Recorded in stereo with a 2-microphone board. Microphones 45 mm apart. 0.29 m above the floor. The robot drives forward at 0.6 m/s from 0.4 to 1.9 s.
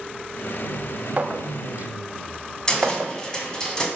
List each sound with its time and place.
1.2 s a clink: 35° right (ahead or behind), 0.7 m; by 3.1 s 40° right (ahead or behind), 0.6 m
2.7 s a cupboard door: 15° left (ahead or behind), 1.7 m